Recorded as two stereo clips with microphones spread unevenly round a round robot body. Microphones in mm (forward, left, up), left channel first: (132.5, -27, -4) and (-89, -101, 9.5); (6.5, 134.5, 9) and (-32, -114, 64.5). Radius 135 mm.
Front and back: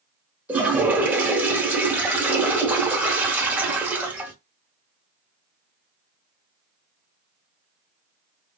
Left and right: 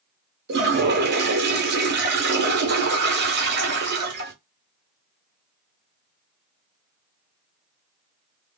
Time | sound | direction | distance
0.5 | a toilet flushing | 80° right | 1.0 m